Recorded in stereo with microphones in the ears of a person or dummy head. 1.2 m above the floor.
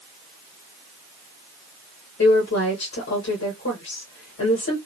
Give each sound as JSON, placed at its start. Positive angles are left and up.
{"t": 2.2, "sound": "a woman speaking", "side_deg": 65, "distance_m": 1.6}